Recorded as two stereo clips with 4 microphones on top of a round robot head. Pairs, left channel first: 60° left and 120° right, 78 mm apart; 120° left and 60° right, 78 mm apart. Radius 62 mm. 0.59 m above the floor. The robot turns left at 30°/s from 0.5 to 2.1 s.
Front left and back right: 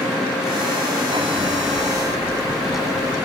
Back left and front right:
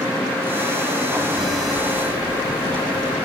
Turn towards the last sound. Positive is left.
turn(degrees=35)